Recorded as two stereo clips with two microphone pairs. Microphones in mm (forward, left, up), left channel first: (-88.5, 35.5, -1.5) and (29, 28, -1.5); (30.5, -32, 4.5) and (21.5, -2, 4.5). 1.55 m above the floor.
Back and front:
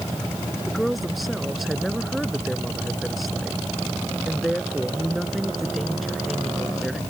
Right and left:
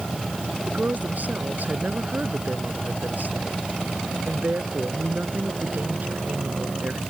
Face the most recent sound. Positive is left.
turn(degrees=85)